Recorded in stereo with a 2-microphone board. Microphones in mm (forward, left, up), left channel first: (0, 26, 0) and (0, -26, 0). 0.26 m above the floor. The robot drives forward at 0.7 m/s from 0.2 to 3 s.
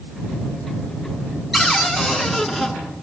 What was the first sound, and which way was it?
A cupboard door, centre (ahead or behind).